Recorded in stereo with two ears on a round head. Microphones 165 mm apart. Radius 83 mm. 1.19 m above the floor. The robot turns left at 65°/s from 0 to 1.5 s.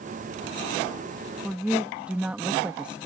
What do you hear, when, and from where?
1.4 s a woman speaking: 5° right (ahead or behind)